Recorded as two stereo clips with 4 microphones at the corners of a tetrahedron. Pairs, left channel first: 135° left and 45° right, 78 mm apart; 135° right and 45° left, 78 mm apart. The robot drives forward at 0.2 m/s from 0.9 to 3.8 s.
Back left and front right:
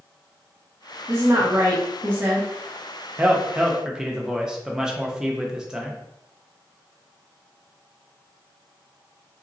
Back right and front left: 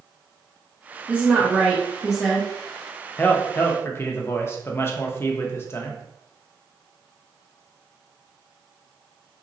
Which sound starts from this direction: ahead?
A woman speaking, at 1.1 s.